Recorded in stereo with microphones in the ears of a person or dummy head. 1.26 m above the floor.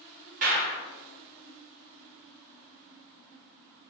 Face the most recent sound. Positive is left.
turn(degrees=-40)  # may be behind; listen again after turning